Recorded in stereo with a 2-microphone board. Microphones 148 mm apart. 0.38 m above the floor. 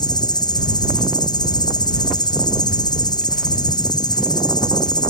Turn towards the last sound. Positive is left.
turn(degrees=30)  # may be behind; listen again after turning